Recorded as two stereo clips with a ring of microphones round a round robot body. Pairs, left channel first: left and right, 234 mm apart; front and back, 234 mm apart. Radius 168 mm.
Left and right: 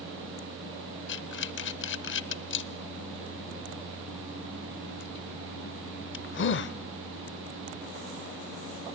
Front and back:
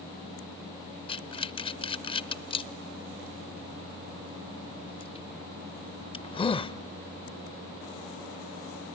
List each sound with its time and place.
1.1 s breathing: 65° left, 0.6 m